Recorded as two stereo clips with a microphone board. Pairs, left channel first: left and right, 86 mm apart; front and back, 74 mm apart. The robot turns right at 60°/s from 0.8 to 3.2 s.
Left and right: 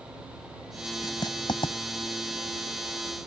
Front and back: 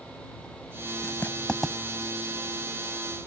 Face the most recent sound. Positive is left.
turn(degrees=180)